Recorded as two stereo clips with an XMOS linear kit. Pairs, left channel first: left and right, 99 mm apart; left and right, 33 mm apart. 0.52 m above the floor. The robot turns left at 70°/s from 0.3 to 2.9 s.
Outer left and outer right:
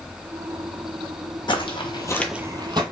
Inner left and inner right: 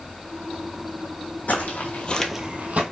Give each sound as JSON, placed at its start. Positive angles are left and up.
{"t": 1.5, "sound": "footsteps", "side_deg": 55, "distance_m": 1.3}